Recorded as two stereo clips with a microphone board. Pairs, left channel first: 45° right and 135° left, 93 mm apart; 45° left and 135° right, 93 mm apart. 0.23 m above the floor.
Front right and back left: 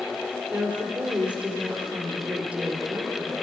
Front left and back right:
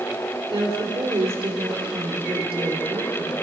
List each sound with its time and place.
0.5 s a woman speaking: 150° right, 3.5 m